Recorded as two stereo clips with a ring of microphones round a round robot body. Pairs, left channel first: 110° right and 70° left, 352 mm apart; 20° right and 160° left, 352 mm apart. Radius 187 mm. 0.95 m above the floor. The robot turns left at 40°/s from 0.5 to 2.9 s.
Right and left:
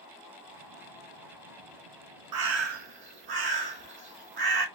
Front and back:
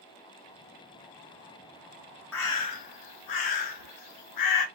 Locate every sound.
2.3 s a bird: 35° left, 1.4 m; by 4.7 s 10° left, 1.4 m